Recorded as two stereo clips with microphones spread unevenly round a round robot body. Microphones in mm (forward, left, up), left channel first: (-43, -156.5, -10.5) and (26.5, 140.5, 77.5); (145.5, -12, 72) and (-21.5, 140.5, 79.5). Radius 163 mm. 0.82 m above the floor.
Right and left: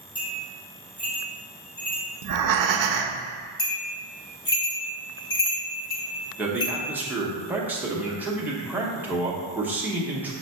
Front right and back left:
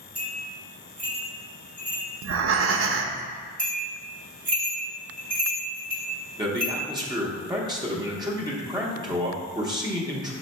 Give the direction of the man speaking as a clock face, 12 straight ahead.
6 o'clock.